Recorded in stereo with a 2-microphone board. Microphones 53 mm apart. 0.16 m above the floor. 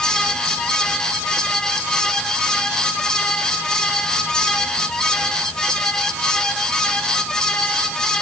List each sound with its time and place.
Only background noise.